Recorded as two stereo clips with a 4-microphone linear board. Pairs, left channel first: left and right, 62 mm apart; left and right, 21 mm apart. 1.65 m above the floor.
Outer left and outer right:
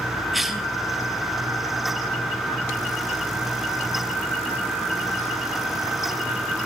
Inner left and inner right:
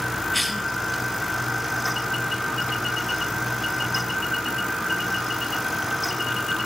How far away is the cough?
About 1.8 m.